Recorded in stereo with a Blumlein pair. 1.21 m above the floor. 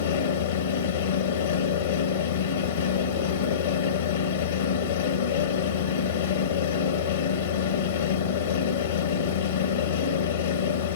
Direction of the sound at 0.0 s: 65° left.